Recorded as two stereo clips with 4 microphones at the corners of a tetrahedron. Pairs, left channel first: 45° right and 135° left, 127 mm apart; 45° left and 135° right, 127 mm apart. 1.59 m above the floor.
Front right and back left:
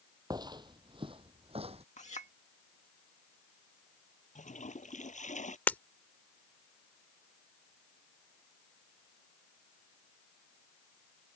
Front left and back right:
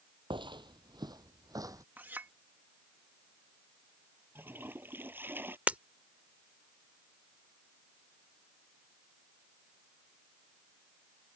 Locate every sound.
0.3 s footsteps: 175° right; by 1.8 s 165° left
2.0 s a clink: 60° right
4.3 s a toilet flushing: 60° right
5.7 s breaking glass: 90° right